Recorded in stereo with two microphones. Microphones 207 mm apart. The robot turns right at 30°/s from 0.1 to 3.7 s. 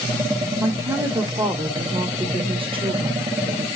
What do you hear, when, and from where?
0.6 s a woman speaking: 10° right (ahead or behind), 0.8 m; by 3.7 s 20° right (ahead or behind), 0.8 m